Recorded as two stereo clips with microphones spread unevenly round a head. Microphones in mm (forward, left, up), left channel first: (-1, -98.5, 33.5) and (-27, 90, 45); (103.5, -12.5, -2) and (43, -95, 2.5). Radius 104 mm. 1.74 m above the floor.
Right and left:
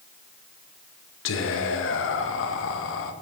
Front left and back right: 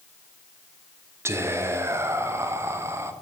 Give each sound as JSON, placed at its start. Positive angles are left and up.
{"t": 1.2, "sound": "whispering", "azimuth_deg": -60, "distance_m": 0.7}